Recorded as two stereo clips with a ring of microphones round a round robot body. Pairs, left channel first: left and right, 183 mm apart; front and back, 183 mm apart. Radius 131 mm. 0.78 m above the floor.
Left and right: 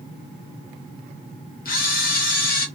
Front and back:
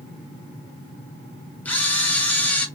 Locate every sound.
1.6 s a camera shutter: 80° left, 0.8 m